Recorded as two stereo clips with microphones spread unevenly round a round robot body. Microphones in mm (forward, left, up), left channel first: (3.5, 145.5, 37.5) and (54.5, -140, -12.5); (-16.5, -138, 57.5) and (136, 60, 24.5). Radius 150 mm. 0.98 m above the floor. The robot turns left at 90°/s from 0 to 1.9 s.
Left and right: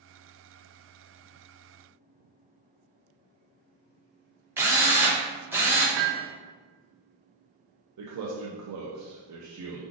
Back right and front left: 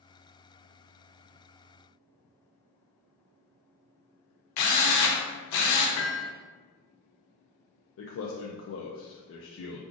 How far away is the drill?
About 0.6 m.